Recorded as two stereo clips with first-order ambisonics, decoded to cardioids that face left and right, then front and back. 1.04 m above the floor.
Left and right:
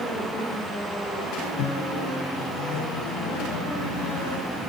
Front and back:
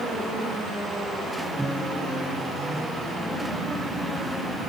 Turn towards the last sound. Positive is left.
turn(degrees=90)